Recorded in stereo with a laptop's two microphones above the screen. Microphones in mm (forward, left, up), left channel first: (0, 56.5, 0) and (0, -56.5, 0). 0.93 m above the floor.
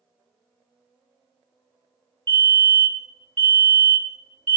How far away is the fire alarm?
About 2.5 m.